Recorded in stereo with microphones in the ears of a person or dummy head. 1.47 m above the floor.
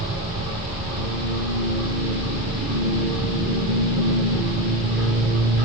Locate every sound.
0.0 s a machine running: 35° right (ahead or behind), 1.5 m